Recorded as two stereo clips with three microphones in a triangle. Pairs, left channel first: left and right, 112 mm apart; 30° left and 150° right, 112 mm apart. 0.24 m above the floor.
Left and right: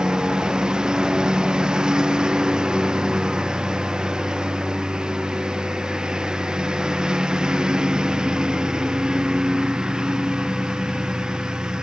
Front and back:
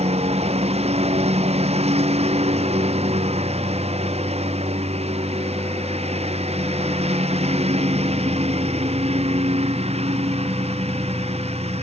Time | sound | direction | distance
0.0 | a lawn mower | 175° right | ?